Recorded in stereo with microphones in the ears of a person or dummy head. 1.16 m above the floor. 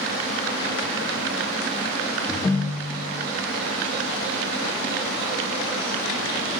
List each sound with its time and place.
2.3 s a ringtone: 10° left (ahead or behind), 0.7 m